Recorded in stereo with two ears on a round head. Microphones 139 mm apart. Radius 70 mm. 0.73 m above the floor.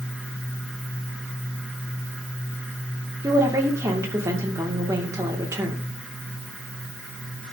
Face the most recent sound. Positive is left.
turn(degrees=-20)  # may be behind; listen again after turning